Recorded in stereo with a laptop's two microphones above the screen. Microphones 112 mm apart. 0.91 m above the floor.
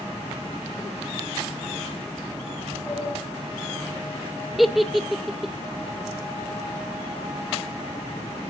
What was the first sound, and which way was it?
A sliding door, 20° right (ahead or behind).